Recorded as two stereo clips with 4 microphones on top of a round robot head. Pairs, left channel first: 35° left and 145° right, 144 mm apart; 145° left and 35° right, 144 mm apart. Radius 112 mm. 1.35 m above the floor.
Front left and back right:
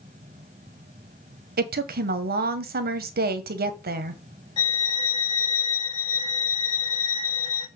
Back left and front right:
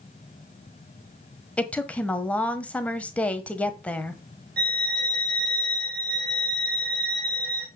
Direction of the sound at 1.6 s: 135° right.